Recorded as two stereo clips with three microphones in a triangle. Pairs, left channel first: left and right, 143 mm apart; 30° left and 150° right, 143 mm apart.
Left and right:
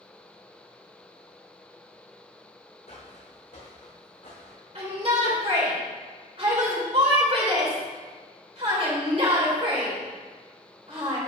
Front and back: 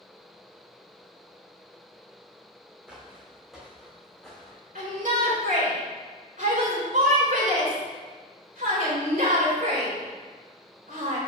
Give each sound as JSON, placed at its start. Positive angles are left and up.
{"t": 2.9, "sound": "footsteps", "azimuth_deg": 130, "distance_m": 2.5}
{"t": 4.8, "sound": "a shout", "azimuth_deg": -135, "distance_m": 3.5}